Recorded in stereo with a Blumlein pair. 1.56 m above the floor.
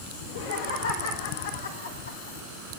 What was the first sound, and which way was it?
Laughter, 55° left.